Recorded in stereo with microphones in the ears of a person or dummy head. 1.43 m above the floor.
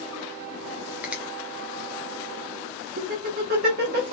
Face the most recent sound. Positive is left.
turn(degrees=-55)  # may be behind; listen again after turning